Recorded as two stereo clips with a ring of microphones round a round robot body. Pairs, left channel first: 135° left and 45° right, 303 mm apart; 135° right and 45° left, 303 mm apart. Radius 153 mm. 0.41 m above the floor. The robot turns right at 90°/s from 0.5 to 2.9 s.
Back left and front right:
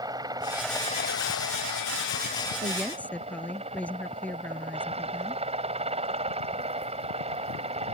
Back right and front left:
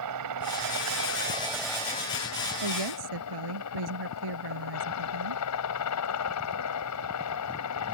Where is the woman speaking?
25° left; by 5.4 s 50° left.